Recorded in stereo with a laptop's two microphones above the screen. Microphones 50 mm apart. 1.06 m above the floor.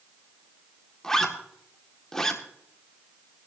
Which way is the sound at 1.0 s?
10° left (ahead or behind).